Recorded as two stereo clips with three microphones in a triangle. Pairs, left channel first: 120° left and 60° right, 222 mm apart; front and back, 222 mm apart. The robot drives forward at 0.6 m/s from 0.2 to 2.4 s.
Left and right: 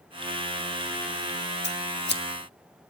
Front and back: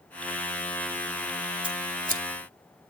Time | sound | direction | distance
1.6 | scissors | 120° left | 0.7 m